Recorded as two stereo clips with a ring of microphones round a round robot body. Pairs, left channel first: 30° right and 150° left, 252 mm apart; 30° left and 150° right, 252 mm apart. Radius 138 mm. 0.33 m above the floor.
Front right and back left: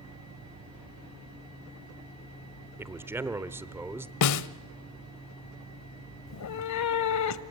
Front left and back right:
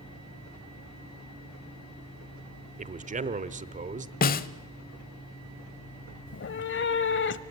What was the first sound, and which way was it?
A man speaking, 140° right.